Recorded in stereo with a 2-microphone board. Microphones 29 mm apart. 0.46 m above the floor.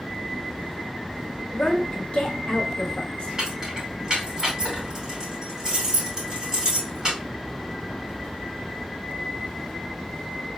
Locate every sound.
1.5 s a woman speaking: 45° left (ahead or behind), 1.4 m
3.4 s keys jangling: 20° right (ahead or behind), 3 m